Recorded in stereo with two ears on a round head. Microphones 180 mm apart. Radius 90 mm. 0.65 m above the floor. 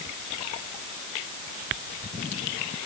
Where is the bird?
No bird in this recording.